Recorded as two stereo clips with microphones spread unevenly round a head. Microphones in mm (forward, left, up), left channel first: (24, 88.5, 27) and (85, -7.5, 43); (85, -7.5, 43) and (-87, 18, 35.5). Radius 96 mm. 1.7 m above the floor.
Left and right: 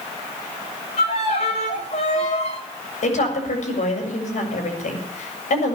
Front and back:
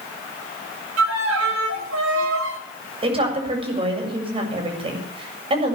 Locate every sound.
1.0 s a violin: straight behind, 3 m
3.0 s a woman speaking: 110° left, 7.5 m